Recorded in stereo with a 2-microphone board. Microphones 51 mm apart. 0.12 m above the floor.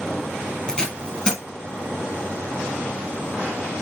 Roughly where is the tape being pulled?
Centre.